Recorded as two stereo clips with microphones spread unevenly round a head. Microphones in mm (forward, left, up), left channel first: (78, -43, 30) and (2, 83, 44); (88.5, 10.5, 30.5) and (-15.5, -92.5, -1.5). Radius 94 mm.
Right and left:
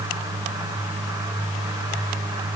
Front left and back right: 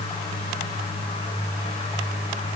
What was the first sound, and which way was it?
Only background noise.